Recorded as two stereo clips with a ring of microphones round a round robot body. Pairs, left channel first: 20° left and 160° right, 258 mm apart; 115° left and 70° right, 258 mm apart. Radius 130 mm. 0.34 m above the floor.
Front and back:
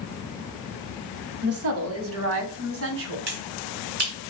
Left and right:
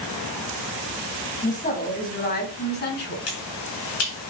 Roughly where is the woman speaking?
Behind.